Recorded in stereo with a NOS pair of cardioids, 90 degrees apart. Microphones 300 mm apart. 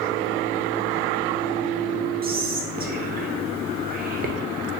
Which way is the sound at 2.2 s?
30° right.